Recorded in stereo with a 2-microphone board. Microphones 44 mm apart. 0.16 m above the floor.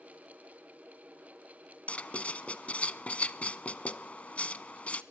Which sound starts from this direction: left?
Writing, at 1.9 s.